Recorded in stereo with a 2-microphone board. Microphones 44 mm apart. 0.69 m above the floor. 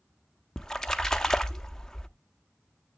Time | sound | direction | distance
0.6 | a splash | 15° left (ahead or behind) | 0.6 m